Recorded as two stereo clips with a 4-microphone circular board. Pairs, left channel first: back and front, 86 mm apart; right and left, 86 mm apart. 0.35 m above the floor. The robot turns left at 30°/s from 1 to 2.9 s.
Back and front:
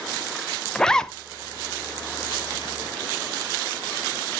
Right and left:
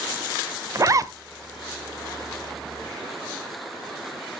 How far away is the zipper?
About 0.5 m.